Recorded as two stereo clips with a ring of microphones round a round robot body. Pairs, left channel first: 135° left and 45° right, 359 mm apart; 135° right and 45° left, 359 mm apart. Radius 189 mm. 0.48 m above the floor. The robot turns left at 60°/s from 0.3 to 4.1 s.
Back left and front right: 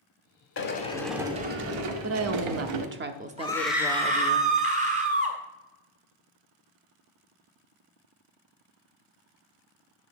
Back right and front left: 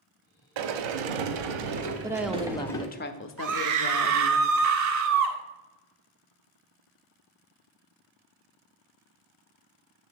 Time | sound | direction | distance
0.6 | a sliding door | 75° left | 0.9 m
2.0 | a woman speaking | 30° right | 0.8 m
3.4 | a scream | 65° left | 1.7 m